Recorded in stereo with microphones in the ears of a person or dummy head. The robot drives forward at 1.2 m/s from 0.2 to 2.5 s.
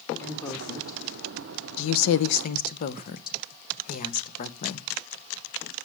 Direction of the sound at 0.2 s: 15° left (ahead or behind).